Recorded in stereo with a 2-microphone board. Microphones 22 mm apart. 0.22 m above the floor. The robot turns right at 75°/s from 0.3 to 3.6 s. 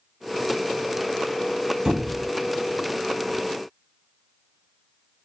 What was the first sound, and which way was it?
A squeak, 140° right.